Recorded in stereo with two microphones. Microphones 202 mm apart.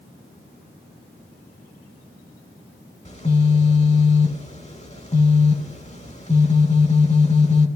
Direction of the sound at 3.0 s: 30° left (ahead or behind).